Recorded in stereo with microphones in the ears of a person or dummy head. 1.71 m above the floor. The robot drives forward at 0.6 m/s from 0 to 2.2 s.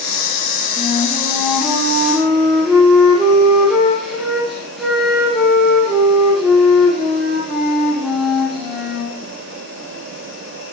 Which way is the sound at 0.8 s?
Centre (ahead or behind).